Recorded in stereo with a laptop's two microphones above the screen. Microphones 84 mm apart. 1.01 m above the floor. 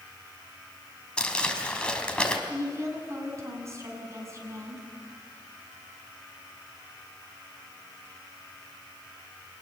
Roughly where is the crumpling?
Centre.